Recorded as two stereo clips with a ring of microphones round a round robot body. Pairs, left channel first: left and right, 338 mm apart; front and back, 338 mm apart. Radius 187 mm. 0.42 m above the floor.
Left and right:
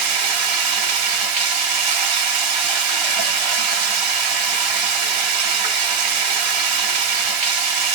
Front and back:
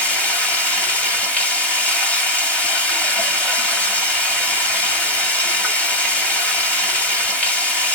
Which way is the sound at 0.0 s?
85° right.